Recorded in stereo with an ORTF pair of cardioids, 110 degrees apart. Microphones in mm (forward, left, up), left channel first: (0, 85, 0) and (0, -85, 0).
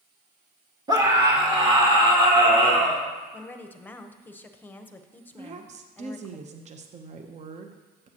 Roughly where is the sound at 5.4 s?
Ahead right.